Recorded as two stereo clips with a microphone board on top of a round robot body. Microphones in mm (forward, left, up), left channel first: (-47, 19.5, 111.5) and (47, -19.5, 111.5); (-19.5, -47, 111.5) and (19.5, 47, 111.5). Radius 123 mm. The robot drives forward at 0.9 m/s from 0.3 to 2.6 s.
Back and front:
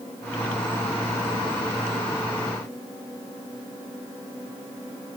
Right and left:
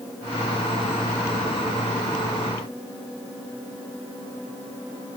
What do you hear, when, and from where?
Only background noise.